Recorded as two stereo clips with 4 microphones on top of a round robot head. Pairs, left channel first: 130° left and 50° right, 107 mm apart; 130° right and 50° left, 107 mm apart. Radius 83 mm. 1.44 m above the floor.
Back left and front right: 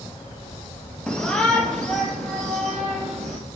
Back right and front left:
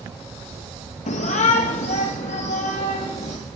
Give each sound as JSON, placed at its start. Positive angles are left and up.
{"t": 1.1, "sound": "a shout", "azimuth_deg": -150, "distance_m": 0.6}